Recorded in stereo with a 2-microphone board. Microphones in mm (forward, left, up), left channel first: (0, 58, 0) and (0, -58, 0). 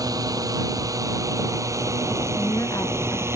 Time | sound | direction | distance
0.0 | a drone | 30° right (ahead or behind) | ?
2.4 | a woman speaking | 30° left (ahead or behind) | ?